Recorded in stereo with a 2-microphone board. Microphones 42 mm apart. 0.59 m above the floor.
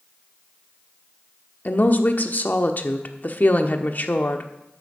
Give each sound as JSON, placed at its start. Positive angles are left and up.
{"t": 1.6, "sound": "a woman speaking", "side_deg": 45, "distance_m": 1.1}